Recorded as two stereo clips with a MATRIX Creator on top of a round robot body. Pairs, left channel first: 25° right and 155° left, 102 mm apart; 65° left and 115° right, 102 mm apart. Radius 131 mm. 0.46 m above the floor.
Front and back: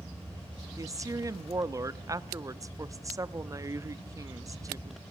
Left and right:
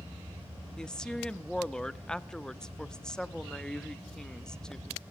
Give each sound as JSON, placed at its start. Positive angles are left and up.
{"t": 0.8, "sound": "a woman speaking", "azimuth_deg": 145, "distance_m": 1.2}